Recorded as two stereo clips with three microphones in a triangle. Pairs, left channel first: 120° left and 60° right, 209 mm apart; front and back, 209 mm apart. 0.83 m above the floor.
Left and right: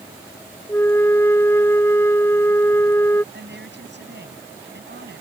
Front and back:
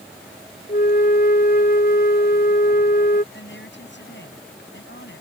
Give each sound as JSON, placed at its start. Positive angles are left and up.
{"t": 0.7, "sound": "a flute", "azimuth_deg": 40}
{"t": 3.3, "sound": "a woman speaking", "azimuth_deg": -30}